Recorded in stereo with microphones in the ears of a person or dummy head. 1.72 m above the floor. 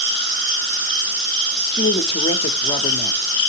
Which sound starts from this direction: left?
A woman speaking, at 1.7 s.